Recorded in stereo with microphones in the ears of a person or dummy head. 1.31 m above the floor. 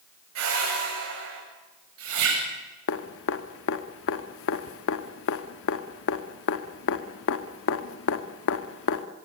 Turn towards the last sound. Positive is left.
turn(degrees=70)  # may be behind; listen again after turning